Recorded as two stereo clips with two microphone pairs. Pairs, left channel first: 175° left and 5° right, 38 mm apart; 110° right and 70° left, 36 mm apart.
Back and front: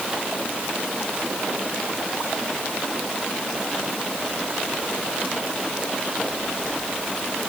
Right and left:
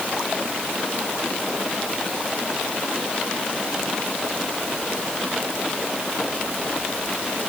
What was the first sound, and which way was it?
Only background noise.